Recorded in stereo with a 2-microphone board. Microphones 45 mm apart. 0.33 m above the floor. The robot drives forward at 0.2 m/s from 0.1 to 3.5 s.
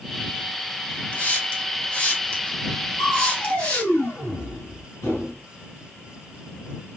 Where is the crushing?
70° left (ahead or behind), 3 m.